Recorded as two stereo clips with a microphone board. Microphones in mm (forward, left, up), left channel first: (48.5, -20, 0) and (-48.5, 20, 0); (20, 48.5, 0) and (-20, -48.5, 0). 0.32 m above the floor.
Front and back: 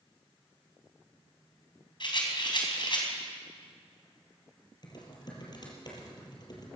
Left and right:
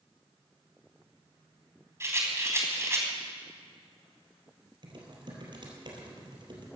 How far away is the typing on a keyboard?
About 3.5 m.